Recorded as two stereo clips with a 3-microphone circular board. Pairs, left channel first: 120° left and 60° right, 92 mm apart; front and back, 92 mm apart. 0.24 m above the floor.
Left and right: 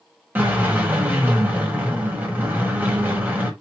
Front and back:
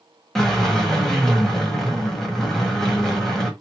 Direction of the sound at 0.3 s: 80° right.